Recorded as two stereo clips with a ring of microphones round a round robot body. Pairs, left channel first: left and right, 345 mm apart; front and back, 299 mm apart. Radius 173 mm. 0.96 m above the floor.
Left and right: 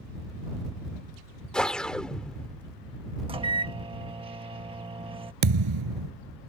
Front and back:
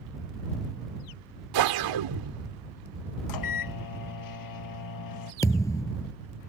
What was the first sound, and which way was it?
A whoosh, straight behind.